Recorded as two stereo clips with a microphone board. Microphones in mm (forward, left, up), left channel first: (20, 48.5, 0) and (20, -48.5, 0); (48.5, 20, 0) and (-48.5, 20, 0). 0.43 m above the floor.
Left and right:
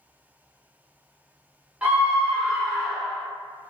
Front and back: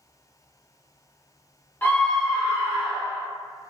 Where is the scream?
35° right, 1.0 m; by 3.3 s 175° right, 1.3 m.